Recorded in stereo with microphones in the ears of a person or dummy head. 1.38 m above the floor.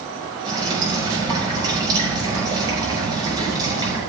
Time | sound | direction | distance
0.5 | dripping | 25° right (ahead or behind) | 5.5 m